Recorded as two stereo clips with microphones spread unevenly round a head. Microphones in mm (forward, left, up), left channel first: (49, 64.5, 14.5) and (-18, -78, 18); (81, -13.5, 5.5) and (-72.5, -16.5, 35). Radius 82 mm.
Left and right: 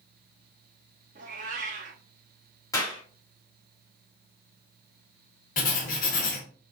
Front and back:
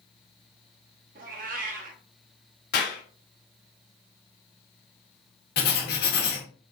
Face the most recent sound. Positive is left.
turn(degrees=25)